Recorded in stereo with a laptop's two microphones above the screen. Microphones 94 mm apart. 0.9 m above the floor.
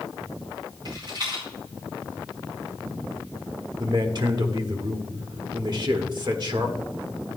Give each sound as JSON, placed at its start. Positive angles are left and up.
{"t": 0.8, "sound": "a rattle", "side_deg": -50, "distance_m": 4.5}
{"t": 3.8, "sound": "a man speaking", "side_deg": -50, "distance_m": 1.3}